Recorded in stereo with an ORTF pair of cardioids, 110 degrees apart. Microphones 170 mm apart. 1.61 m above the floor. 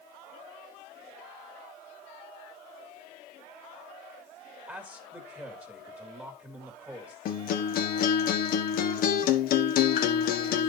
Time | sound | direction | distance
4.7 | a man speaking | 10° right | 2.5 m
7.2 | a guitar | 60° left | 1.4 m